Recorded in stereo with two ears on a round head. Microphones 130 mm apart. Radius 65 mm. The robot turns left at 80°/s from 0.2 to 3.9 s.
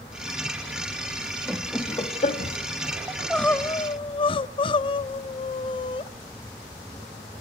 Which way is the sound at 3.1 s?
160° right.